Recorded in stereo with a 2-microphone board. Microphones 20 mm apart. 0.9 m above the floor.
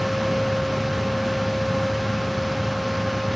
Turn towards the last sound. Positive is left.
No sound to turn to.